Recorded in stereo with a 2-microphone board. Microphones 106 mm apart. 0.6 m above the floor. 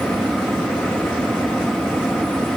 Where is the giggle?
I don't hear a giggle.